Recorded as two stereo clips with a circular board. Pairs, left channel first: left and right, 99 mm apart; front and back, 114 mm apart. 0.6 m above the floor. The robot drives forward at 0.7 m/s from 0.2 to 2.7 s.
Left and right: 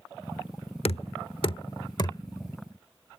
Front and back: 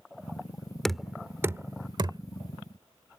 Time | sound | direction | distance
0.8 | knocking | 85° left | ?